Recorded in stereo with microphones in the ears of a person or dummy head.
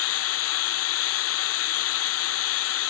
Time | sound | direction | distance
0.0 | running water | 80° left | ?